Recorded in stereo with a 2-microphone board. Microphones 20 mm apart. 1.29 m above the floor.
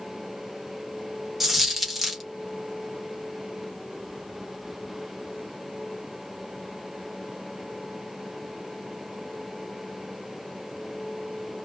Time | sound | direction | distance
1.4 | a dropped coin | 5° right (ahead or behind) | 0.6 m